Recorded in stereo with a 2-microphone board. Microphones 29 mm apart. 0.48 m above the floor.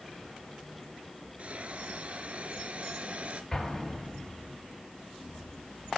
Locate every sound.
1.4 s a hiss: 50° right (ahead or behind), 2 m
3.5 s an explosion: 20° left (ahead or behind), 8 m